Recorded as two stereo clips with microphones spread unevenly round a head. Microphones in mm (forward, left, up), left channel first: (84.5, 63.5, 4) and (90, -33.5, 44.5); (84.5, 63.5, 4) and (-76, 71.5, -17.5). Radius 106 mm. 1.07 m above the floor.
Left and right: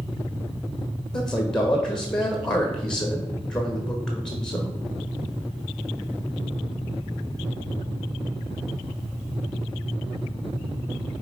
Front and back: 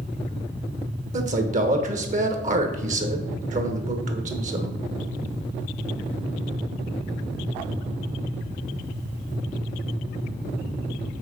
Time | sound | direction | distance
1.1 | a man speaking | 160° left | 1.1 m